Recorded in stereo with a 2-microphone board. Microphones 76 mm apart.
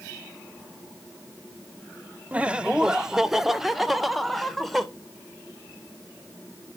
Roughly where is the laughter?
Centre.